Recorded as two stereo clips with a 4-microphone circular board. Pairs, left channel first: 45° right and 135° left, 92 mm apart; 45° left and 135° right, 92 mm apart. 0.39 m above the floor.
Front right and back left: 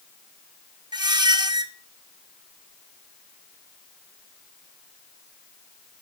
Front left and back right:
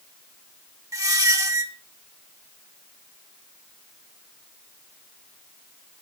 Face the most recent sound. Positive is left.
turn(degrees=175)